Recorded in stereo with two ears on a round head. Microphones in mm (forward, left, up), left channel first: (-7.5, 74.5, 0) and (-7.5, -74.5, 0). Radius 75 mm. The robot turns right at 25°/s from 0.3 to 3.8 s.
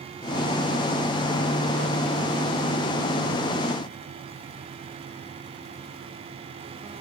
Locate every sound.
Only background noise.